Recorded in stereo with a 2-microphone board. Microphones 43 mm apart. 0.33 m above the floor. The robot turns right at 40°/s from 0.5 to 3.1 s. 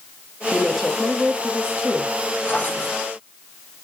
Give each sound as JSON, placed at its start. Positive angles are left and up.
{"t": 0.5, "sound": "a woman speaking", "azimuth_deg": 165, "distance_m": 1.5}
{"t": 2.5, "sound": "a drawer", "side_deg": 35, "distance_m": 5.5}